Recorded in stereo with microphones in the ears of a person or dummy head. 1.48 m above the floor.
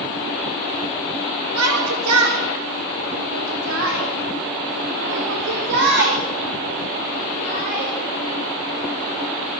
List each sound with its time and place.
1.6 s a shout: 85° right, 4 m; by 7.9 s 40° right (ahead or behind), 5.5 m